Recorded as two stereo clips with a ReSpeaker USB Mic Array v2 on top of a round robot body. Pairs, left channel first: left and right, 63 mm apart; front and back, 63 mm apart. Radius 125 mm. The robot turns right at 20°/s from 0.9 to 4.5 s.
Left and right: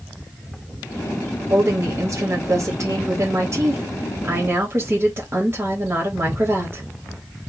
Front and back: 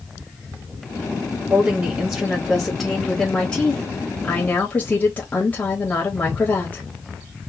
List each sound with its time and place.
1.5 s a woman speaking: 115° right, 1.5 m; by 6.8 s 55° right, 1.5 m